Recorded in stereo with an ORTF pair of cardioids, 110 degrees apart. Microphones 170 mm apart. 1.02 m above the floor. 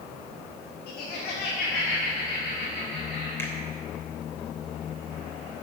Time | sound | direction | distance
0.9 | laughter | 65° left | 1.6 m
3.4 | a finger snap | 15° left | 3 m